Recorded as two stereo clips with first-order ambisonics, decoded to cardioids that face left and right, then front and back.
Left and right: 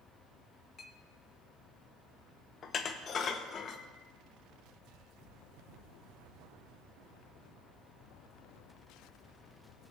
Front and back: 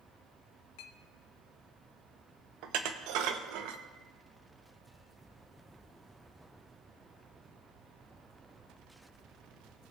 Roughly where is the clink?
Ahead.